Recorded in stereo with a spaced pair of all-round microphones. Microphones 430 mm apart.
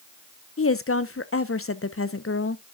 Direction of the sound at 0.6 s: 30° left (ahead or behind).